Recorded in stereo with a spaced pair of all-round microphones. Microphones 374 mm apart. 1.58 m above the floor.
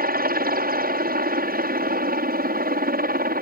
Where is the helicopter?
25° right (ahead or behind).